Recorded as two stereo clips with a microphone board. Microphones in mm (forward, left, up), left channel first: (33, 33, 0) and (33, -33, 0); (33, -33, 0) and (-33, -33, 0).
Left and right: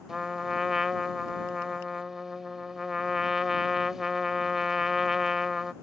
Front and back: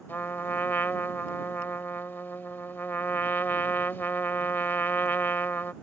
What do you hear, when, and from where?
0.1 s a trumpet: 10° right